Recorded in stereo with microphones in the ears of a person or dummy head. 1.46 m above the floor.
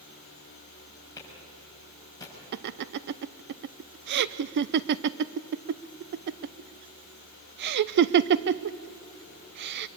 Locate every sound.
1.2 s a clap: 15° left (ahead or behind), 6.5 m
2.5 s laughter: 50° right (ahead or behind), 0.6 m